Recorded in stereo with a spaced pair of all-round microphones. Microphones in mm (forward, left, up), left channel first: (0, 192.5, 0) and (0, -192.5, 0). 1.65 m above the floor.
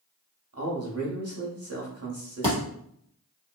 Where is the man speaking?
40° right (ahead or behind), 0.9 m.